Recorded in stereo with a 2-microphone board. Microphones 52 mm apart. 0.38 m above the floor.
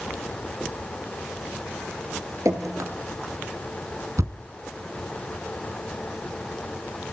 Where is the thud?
80° right, 1.7 m.